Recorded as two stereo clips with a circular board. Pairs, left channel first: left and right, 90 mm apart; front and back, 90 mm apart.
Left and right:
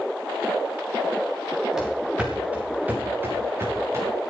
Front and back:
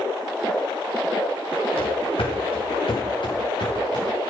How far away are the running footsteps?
About 5 m.